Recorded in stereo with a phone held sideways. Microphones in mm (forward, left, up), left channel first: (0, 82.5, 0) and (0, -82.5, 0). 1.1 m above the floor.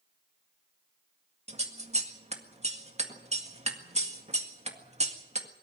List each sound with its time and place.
1.5 s scissors: 40° right (ahead or behind), 1.8 m